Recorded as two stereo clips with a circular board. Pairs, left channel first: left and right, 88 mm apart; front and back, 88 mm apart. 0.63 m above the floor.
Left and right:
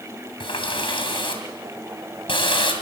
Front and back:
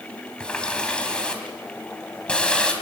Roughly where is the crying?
I don't hear crying.